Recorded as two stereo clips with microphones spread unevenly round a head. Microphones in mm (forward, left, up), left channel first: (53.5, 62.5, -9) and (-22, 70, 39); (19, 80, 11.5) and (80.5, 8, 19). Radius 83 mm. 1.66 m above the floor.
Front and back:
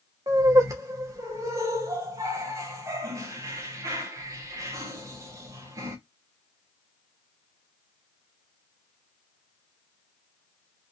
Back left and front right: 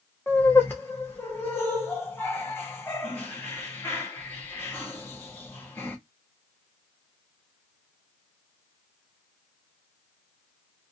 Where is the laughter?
150° right, 0.8 m.